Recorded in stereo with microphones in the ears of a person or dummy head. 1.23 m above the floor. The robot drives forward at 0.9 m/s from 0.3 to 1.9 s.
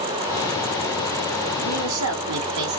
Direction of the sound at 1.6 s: 70° right (ahead or behind).